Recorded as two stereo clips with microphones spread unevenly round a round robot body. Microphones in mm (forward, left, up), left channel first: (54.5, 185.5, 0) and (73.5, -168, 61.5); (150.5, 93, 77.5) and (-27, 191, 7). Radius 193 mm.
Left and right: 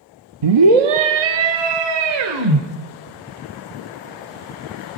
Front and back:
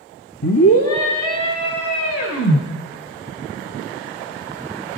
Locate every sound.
0.4 s a scream: 80° right, 1.2 m; by 2.6 s 75° right, 3.5 m